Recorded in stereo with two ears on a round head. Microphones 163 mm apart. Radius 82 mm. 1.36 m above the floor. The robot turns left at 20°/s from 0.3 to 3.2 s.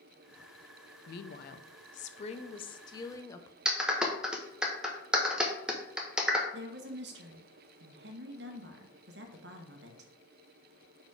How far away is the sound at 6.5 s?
About 1.1 m.